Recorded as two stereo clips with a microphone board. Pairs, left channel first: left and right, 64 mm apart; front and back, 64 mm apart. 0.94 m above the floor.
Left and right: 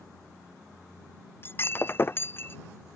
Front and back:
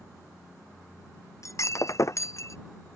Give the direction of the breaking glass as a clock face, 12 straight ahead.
11 o'clock.